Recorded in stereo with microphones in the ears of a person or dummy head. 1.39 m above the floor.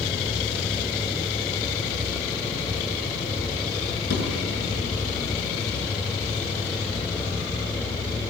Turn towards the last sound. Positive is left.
turn(degrees=65)  # may be behind; listen again after turning